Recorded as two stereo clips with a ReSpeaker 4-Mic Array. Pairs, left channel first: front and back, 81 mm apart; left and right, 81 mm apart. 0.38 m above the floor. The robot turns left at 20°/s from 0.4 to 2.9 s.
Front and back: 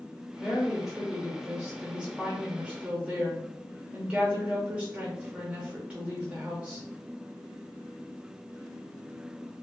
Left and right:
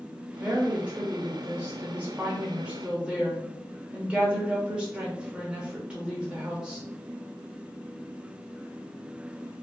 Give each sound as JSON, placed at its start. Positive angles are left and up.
{"t": 0.4, "sound": "a woman speaking", "azimuth_deg": -95, "distance_m": 0.8}